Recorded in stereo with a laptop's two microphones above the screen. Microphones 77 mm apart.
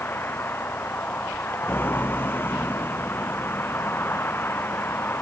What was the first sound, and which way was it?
A vehicle, 30° left (ahead or behind).